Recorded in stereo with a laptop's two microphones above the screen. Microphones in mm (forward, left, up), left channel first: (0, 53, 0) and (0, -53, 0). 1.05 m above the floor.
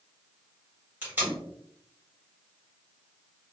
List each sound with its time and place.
1.0 s tape being pulled: 20° right (ahead or behind), 1.5 m